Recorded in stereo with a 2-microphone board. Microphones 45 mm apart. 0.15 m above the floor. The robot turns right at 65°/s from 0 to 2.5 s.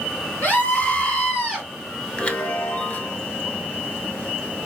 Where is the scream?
100° left, 2.0 m; by 1.7 s straight behind, 2.0 m.